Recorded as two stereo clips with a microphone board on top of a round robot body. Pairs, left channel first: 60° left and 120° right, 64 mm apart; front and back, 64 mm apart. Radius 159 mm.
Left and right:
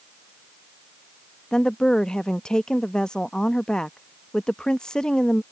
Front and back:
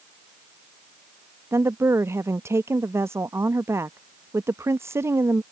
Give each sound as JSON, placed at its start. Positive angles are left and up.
{"t": 1.5, "sound": "a woman speaking", "azimuth_deg": 135}